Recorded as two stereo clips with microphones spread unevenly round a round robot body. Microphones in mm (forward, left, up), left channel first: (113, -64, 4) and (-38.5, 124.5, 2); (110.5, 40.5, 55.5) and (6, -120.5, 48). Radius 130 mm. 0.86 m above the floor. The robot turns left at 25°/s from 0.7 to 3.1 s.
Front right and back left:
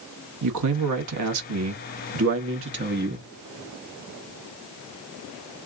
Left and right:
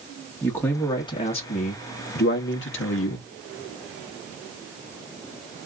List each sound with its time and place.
0.4 s a man speaking: 140° left, 1.2 m; by 3.3 s 80° left, 1.2 m